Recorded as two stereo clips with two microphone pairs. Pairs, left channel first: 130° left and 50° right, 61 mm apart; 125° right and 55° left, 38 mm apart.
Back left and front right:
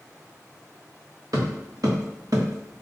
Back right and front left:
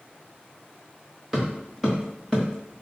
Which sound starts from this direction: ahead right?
Footsteps, at 1.3 s.